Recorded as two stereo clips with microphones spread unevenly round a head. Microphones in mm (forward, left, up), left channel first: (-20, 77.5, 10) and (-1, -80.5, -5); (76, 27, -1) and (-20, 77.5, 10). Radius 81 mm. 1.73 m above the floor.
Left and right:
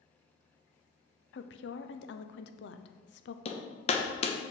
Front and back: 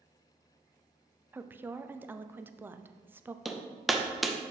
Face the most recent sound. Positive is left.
turn(degrees=70)